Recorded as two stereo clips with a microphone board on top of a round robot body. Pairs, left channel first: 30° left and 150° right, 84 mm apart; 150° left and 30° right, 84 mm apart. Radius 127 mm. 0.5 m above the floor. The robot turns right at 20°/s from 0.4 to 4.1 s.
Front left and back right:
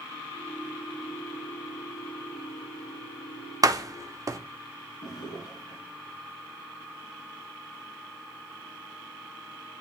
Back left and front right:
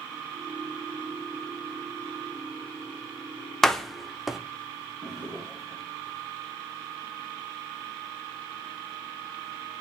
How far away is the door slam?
About 0.9 m.